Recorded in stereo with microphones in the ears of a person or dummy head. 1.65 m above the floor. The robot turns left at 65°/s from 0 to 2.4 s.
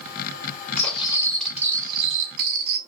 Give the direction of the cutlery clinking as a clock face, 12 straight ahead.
11 o'clock.